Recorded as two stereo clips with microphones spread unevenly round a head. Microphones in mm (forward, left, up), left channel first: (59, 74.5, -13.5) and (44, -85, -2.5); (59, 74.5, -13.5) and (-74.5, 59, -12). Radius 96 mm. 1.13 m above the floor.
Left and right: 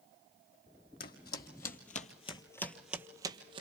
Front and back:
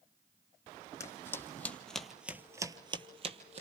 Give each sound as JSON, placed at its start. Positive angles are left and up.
{"t": 1.0, "sound": "footsteps", "azimuth_deg": 75, "distance_m": 2.5}